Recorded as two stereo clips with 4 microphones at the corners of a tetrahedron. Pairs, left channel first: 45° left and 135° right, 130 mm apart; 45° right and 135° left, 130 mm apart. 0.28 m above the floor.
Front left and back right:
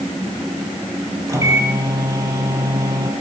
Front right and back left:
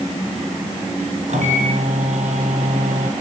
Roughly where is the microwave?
Behind.